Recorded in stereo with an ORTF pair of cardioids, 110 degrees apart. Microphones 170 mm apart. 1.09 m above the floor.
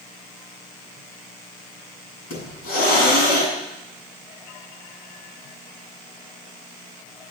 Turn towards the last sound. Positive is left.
turn(degrees=70)